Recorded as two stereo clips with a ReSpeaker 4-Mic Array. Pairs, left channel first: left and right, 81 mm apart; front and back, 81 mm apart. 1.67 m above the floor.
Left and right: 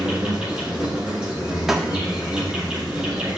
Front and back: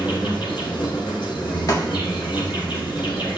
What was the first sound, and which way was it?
An insect, 5° right.